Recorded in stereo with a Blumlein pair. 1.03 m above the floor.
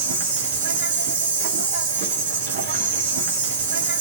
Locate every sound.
0.0 s an insect: 55° right, 2.5 m